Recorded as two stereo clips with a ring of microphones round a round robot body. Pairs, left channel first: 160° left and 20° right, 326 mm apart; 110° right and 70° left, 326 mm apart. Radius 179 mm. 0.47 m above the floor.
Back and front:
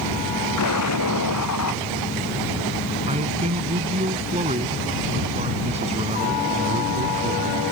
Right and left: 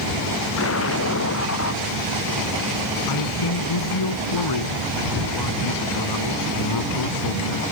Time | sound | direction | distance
0.6 | an explosion | 160° right | ?
3.1 | a man speaking | 95° right | ?